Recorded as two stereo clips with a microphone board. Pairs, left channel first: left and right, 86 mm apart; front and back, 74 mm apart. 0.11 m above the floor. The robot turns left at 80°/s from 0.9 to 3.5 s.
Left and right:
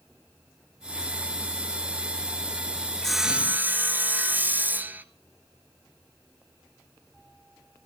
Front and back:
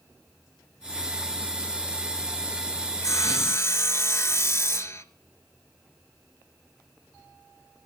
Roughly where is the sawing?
Ahead.